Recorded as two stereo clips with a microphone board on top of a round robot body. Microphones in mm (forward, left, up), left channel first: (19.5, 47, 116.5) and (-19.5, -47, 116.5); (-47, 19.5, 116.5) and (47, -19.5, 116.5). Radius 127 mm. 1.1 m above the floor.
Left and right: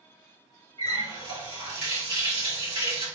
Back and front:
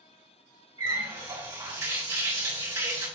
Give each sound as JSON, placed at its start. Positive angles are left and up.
{"t": 0.8, "sound": "a running tap", "azimuth_deg": -75, "distance_m": 3.0}